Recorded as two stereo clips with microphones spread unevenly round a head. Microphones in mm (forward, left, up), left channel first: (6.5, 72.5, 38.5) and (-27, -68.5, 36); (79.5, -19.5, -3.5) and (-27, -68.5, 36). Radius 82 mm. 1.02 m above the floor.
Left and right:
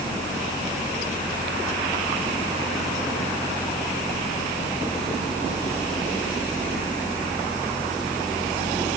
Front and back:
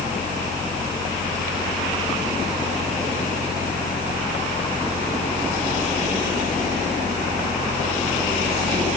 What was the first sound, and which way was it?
Only background noise.